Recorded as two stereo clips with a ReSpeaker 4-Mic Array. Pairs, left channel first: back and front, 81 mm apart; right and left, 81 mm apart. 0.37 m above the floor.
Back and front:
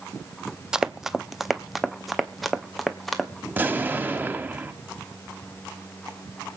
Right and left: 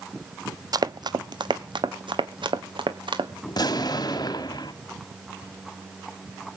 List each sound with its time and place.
0.7 s running footsteps: 80° left, 0.5 m; by 3.3 s 95° left, 1.7 m
3.5 s an explosion: 65° right, 1.5 m